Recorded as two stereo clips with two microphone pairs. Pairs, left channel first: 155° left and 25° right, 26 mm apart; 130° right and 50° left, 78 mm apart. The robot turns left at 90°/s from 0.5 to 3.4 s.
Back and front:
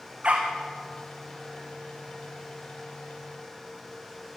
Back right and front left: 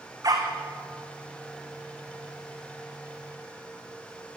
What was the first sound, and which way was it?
A dog barking, 15° left.